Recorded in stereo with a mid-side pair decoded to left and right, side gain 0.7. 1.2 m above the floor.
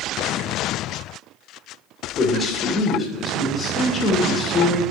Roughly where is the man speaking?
Ahead left.